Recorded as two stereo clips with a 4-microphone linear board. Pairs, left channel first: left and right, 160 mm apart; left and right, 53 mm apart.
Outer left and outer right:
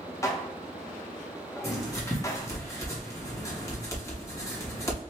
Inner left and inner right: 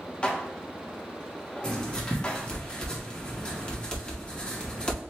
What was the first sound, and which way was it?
Dishes clattering, 20° left (ahead or behind).